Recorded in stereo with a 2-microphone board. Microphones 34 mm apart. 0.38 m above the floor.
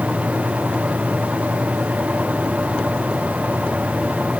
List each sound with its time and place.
Only background noise.